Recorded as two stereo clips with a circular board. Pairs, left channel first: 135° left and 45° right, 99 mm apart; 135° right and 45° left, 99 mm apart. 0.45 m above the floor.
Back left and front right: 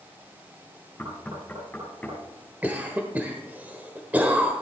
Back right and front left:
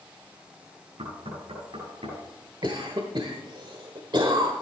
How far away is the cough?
About 1.3 m.